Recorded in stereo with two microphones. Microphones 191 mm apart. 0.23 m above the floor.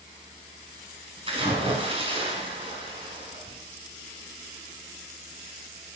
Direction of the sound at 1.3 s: 30° right (ahead or behind).